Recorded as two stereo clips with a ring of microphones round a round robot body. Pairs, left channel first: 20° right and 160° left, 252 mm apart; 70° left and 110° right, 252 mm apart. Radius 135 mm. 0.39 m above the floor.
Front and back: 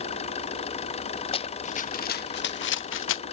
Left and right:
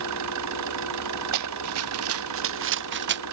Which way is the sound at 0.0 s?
90° right.